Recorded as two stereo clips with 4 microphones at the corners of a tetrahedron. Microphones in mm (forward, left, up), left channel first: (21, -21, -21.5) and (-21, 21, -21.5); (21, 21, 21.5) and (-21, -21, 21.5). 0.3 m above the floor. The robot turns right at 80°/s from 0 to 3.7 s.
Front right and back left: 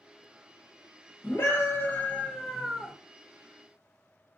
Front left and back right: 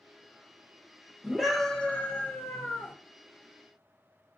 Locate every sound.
1.2 s a scream: 65° right, 1.1 m; by 2.9 s 70° left, 1.1 m